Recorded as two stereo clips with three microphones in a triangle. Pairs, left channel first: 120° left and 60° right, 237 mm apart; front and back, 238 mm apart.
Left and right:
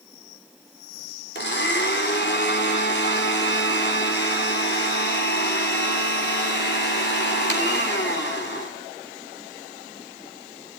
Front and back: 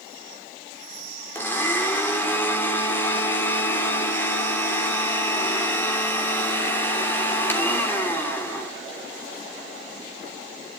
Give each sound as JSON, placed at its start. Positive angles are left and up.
{"t": 1.4, "sound": "a blender", "azimuth_deg": 80, "distance_m": 3.0}